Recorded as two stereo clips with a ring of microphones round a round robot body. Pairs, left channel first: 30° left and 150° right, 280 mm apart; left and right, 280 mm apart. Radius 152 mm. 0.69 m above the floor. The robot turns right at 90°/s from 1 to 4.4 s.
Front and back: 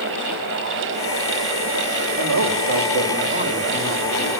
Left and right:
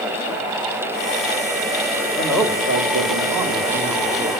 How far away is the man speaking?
About 3 m.